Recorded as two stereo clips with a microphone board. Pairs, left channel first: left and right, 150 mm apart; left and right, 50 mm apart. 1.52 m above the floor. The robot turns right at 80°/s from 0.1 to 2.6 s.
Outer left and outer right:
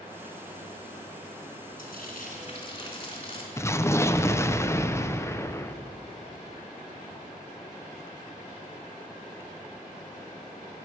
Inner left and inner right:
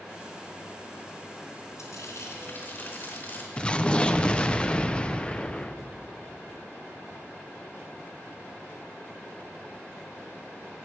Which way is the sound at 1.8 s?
75° left.